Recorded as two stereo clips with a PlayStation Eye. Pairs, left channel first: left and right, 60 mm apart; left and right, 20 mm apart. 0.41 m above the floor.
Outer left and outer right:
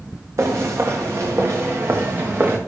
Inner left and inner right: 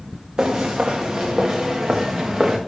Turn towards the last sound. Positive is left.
turn(degrees=-40)  # may be behind; listen again after turning